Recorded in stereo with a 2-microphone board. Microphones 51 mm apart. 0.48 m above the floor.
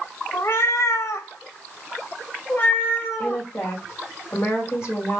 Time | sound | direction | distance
0.3 | a cat meowing | 50° left (ahead or behind) | 1.0 m
3.2 | a woman speaking | 50° left (ahead or behind) | 2 m